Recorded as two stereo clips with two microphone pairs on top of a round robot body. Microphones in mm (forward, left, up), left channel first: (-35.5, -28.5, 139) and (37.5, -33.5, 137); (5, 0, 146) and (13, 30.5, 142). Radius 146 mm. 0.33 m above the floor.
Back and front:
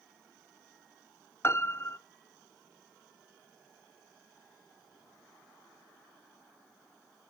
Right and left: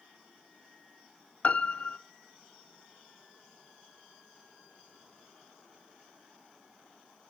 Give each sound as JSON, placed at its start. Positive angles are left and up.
{"t": 1.4, "sound": "a piano", "azimuth_deg": -145, "distance_m": 0.9}